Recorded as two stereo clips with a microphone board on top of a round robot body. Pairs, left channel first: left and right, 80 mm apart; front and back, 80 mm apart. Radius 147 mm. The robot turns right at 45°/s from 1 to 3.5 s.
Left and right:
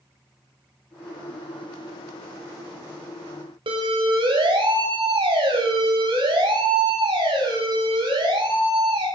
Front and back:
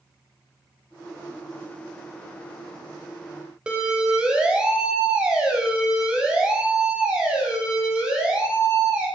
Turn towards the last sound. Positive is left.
turn(degrees=-100)